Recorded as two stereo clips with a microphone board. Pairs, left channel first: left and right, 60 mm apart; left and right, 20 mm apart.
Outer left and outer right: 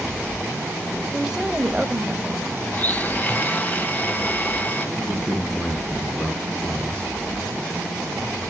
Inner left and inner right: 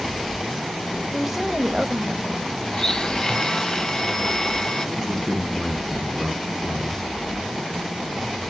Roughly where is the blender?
Left.